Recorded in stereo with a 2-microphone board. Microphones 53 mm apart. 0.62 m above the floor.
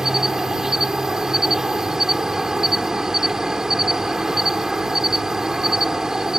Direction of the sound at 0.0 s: 10° right (ahead or behind).